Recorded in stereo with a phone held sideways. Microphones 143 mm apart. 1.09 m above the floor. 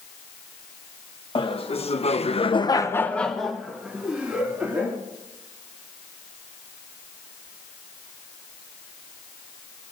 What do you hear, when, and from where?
1.4 s laughter: 40° left (ahead or behind), 1.5 m; by 5.0 s 15° right (ahead or behind), 3 m